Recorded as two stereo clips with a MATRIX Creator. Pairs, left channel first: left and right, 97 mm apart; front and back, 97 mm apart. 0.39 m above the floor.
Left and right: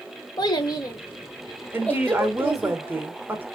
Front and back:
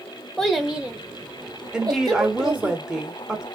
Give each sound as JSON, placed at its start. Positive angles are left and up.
{"t": 0.4, "sound": "a child speaking", "azimuth_deg": 85, "distance_m": 1.0}
{"t": 1.7, "sound": "a woman speaking", "azimuth_deg": -105, "distance_m": 0.8}